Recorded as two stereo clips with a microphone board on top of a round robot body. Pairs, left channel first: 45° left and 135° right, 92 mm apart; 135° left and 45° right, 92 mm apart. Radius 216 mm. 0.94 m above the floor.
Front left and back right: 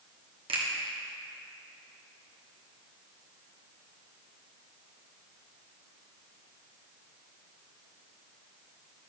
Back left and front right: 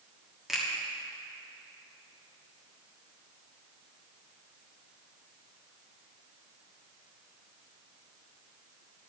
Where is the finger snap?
130° right, 1.6 m.